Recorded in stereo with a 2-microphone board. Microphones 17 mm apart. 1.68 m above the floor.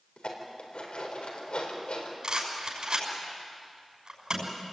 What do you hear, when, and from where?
0.2 s dishes clattering: 80° left, 4.5 m
2.2 s a rattle: 50° right (ahead or behind), 6 m